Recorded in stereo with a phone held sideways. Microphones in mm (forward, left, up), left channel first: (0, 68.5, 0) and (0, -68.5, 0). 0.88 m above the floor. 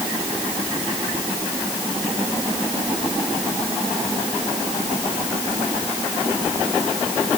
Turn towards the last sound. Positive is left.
No sound to turn to.